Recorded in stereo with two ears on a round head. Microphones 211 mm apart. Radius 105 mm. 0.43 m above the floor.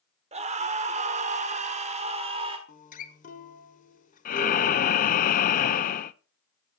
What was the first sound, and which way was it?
A scream, 30° right (ahead or behind).